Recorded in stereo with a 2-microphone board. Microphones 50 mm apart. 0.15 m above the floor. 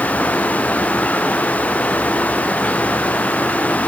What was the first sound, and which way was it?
Only background noise.